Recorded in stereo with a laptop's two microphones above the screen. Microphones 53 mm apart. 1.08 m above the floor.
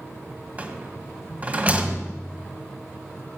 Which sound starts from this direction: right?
A rattle, at 0.6 s.